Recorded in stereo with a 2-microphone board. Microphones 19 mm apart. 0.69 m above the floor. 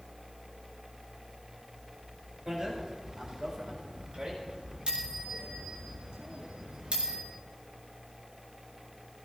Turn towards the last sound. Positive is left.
turn(degrees=-85)